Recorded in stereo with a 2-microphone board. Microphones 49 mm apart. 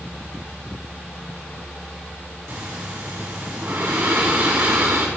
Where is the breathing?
55° right (ahead or behind), 2.0 m.